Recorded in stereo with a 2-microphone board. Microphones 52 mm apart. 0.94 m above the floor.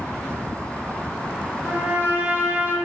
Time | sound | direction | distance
1.6 | a trumpet | 35° right (ahead or behind) | 0.7 m